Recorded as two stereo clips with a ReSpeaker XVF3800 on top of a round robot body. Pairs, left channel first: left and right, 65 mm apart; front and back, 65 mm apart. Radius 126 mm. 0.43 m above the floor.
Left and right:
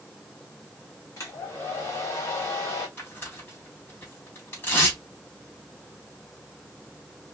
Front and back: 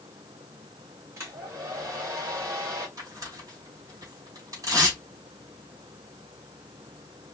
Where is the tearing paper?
150° left, 2.5 m.